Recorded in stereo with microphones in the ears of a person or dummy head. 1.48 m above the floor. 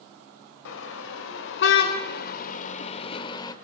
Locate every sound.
0.7 s a car horn: 70° left (ahead or behind), 3.5 m; by 3.5 s 30° left (ahead or behind), 2.5 m